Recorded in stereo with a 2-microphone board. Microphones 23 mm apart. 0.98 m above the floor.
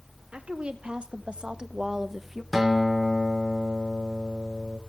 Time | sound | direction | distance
0.3 | a woman speaking | 55° right (ahead or behind) | 2 m
2.5 | a guitar | 5° right (ahead or behind) | 3 m